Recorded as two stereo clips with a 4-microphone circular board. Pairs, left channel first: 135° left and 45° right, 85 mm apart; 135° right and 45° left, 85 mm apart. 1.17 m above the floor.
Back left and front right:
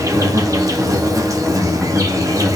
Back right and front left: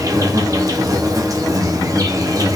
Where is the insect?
Straight ahead, 0.8 m.